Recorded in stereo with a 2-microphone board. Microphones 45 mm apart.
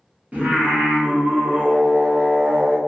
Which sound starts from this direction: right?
Singing, at 0.3 s.